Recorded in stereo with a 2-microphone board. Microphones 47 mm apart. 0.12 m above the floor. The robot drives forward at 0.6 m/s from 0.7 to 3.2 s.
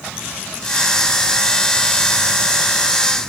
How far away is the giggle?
No giggle in this recording.